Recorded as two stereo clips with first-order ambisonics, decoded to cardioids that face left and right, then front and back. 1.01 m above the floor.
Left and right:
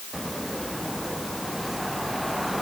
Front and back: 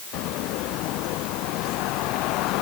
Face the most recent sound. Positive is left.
No sound to turn to.